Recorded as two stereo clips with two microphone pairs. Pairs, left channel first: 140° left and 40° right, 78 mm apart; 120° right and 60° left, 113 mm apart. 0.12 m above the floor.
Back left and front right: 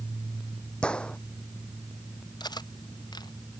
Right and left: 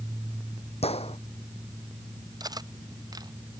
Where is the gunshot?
145° right.